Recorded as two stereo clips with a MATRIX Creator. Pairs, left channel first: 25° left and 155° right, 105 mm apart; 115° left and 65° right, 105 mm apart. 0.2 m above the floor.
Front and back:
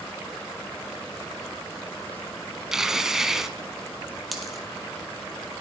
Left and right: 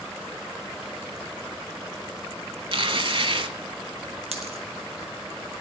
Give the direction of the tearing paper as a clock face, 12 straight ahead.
2 o'clock.